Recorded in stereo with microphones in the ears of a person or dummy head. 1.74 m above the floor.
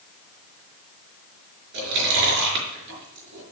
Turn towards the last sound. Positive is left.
turn(degrees=-65)  # may be behind; listen again after turning